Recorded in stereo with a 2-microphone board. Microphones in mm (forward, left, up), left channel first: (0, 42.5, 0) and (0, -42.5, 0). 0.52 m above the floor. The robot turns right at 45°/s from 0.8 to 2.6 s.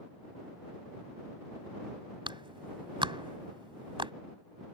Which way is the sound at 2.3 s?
75° right (ahead or behind).